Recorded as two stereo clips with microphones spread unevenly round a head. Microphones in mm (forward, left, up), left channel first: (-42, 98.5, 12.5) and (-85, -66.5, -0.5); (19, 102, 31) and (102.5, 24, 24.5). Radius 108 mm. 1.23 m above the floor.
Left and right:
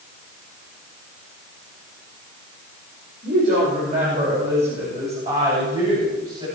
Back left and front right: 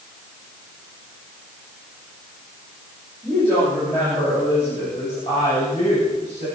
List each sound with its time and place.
3.2 s a woman speaking: 140° right, 7 m; by 6.5 s 165° right, 9 m